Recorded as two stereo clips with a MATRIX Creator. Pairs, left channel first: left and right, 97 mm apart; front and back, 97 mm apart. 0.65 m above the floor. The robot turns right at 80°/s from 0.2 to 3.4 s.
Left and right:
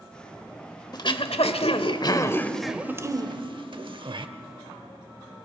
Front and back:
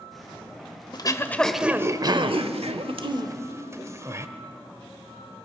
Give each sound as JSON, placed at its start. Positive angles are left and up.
{"t": 0.9, "sound": "throat clearing", "azimuth_deg": 45, "distance_m": 1.0}